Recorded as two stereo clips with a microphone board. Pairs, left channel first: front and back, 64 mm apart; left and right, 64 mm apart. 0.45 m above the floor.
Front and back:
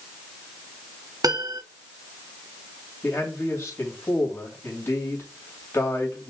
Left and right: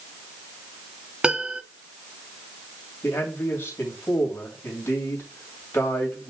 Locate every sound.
1.2 s a piano: 165° right, 0.6 m
3.0 s a man speaking: 40° left, 2.5 m